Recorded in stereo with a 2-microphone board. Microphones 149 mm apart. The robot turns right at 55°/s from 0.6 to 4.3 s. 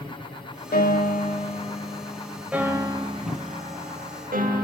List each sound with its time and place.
0.7 s a piano: 90° left, 0.6 m; by 4.6 s 75° right, 0.6 m